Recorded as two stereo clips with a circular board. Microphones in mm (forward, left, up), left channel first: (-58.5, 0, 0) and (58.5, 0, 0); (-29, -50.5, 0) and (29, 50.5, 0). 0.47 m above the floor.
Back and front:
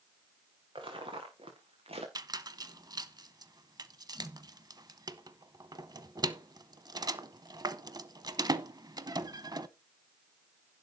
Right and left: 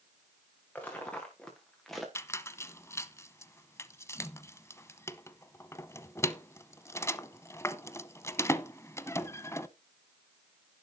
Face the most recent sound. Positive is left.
turn(degrees=-55)